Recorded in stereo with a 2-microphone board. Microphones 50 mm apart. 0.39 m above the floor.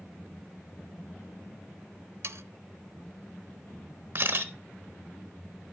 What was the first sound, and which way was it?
Sawing, 60° right (ahead or behind).